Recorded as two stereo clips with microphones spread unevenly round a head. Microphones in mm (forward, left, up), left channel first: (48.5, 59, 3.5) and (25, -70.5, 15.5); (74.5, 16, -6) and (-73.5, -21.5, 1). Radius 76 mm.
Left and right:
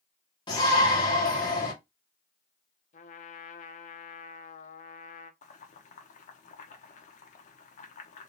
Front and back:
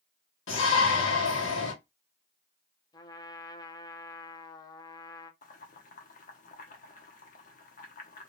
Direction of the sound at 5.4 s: 50° left.